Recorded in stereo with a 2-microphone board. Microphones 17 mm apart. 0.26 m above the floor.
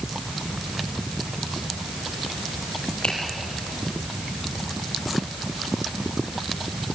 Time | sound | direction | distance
3.0 | a finger snap | 75° left (ahead or behind) | 5.5 m